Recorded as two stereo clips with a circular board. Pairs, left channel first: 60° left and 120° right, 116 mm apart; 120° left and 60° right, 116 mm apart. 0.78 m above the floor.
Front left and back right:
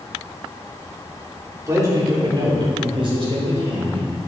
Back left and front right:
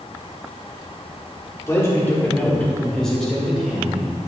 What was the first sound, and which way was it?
A man speaking, straight behind.